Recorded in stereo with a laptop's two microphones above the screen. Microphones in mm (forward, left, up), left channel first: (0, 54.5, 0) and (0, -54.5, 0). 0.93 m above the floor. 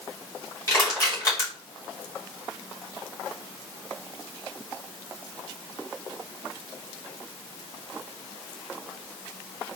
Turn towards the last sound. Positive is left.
turn(degrees=30)  # may be behind; listen again after turning